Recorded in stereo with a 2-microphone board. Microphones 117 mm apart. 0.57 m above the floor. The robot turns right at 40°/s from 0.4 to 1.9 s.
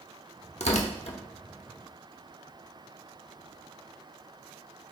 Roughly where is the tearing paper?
Left.